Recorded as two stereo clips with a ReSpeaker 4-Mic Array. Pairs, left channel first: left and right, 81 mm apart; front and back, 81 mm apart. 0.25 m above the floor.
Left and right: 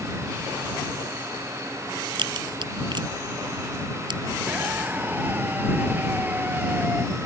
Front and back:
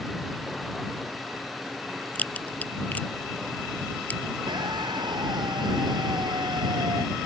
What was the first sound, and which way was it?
A crack, 70° right.